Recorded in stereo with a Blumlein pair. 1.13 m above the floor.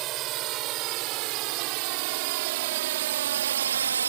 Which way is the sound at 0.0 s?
35° right.